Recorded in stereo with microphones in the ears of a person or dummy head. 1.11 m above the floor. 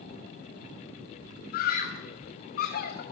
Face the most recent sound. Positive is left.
turn(degrees=50)  # may be behind; listen again after turning